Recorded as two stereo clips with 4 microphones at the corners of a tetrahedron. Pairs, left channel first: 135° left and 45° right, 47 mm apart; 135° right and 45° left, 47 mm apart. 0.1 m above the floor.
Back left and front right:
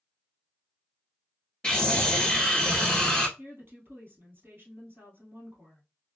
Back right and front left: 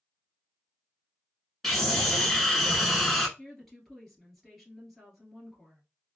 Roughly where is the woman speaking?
Ahead right.